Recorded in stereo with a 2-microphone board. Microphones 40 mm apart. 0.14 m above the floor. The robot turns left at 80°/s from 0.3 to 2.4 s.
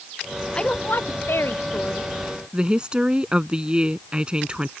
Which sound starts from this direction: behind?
A woman speaking, at 0.6 s.